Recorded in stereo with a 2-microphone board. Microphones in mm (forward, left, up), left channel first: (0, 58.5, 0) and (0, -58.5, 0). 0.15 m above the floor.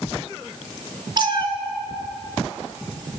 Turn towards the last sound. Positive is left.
turn(degrees=-40)  # may be behind; listen again after turning